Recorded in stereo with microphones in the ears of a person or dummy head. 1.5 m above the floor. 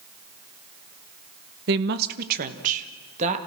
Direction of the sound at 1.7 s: 60° right (ahead or behind).